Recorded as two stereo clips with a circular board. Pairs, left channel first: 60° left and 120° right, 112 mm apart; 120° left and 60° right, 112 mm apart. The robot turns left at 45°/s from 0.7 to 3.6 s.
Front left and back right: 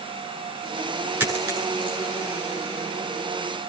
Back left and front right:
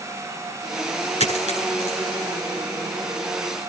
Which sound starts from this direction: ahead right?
A dropped coin, at 1.2 s.